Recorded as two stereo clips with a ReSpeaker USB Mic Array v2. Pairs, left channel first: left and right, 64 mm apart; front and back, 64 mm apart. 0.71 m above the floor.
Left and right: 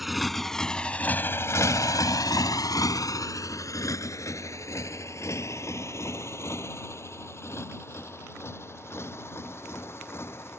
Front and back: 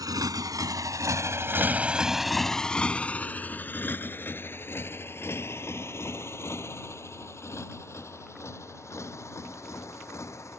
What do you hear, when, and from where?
0.0 s a motorcycle: straight behind; by 10.6 s 40° left